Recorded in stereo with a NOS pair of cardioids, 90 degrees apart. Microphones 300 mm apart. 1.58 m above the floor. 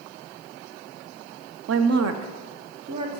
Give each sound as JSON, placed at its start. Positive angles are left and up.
{"t": 1.7, "sound": "a woman speaking", "azimuth_deg": -55, "distance_m": 0.7}